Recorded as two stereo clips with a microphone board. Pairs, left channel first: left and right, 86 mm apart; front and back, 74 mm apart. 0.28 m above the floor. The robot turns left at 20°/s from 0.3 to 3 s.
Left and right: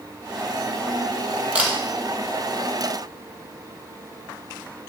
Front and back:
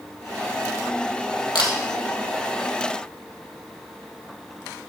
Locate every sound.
1.6 s a camera shutter: 15° right, 2.0 m; by 1.7 s 20° right, 2.0 m